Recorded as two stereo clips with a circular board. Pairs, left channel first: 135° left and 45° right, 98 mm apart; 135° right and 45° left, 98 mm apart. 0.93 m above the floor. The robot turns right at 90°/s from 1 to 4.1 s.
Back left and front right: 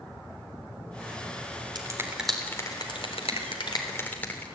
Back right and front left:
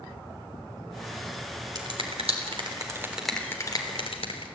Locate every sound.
1.8 s a finger snap: 5° right, 3.5 m; by 4.5 s 150° right, 3.5 m